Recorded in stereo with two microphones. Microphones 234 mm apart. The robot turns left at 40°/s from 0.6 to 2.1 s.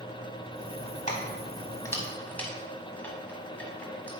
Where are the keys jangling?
30° left (ahead or behind), 1.3 m; by 4.1 s 5° left (ahead or behind), 1.3 m.